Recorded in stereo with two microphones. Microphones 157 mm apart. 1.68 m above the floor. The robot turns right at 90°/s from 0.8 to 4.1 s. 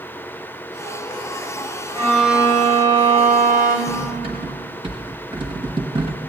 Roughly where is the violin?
Behind left.